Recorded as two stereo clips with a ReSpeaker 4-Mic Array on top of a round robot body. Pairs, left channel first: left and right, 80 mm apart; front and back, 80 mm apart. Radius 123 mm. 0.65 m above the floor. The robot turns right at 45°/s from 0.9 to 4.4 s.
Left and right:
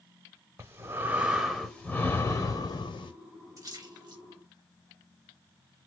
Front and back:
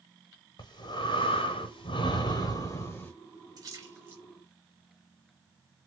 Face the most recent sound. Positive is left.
turn(degrees=-100)